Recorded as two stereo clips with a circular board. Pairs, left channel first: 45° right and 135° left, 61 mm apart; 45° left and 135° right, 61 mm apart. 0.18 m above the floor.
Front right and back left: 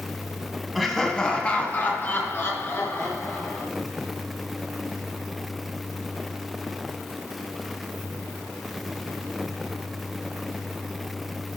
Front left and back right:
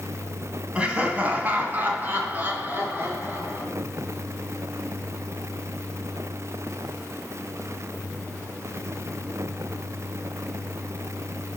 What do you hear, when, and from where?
0.8 s laughter: 135° right, 1.6 m; by 3.6 s 80° right, 4 m